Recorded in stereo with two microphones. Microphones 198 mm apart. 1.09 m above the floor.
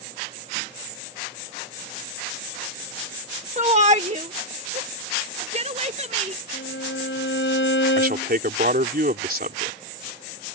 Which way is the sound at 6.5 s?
75° left (ahead or behind).